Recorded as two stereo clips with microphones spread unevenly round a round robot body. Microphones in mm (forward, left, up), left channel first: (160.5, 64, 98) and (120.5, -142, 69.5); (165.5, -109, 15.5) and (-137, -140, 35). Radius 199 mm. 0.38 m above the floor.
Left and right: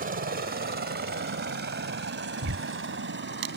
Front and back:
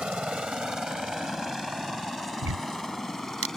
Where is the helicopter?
85° right.